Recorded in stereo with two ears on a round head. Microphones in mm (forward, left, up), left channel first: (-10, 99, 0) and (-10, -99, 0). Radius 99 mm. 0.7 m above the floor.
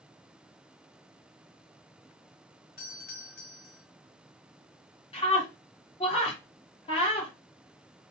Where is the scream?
25° left (ahead or behind), 1.7 m.